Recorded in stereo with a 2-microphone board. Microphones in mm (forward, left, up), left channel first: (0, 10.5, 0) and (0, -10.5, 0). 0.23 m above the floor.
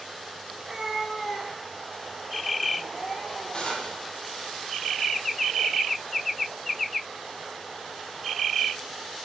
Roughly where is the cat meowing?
Right.